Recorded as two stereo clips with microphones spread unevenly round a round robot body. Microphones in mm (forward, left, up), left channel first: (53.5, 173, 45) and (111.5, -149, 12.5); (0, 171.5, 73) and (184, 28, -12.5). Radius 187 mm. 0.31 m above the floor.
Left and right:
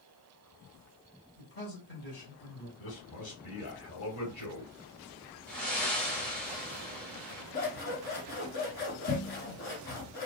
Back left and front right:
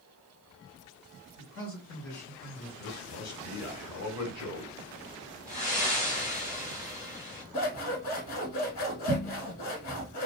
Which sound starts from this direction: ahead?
Breathing, at 5.5 s.